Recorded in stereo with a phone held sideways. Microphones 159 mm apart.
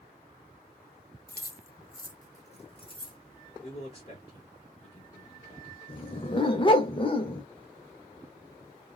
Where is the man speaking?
35° left (ahead or behind), 1.2 m.